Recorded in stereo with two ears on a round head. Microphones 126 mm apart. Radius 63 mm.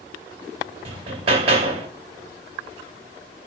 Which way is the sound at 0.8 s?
45° right (ahead or behind).